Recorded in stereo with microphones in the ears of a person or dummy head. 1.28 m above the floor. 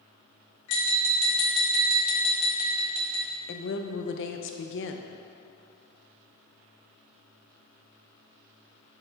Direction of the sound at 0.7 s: 70° left (ahead or behind).